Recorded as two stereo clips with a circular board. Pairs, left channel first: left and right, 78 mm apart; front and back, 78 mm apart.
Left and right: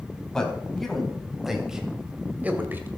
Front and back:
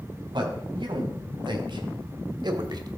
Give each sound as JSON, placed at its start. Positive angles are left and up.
{"t": 0.3, "sound": "a man speaking", "azimuth_deg": 170, "distance_m": 3.5}